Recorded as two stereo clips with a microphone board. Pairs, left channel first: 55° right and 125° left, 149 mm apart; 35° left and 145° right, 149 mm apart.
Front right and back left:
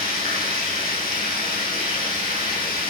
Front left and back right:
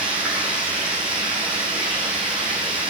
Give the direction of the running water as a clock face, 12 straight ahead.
2 o'clock.